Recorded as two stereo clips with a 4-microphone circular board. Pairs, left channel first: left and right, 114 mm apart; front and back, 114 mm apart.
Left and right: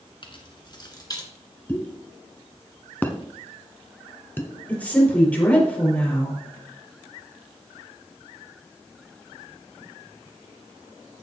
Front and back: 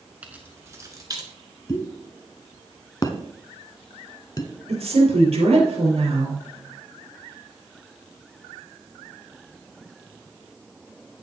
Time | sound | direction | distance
0.2 | keys jangling | 105° left | 1.5 m
1.7 | a pop | 30° left | 1.1 m
4.7 | a woman speaking | 165° left | 4.5 m